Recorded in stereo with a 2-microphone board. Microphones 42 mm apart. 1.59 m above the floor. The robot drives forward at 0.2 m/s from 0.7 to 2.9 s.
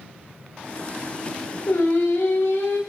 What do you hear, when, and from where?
1.7 s singing: 65° left (ahead or behind), 0.6 m; by 2.8 s 70° left (ahead or behind), 0.6 m